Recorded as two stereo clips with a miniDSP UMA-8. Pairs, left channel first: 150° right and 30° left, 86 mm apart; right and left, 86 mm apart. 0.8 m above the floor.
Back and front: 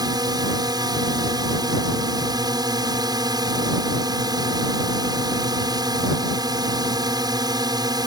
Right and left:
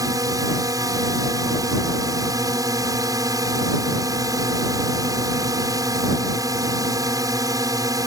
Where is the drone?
55° left.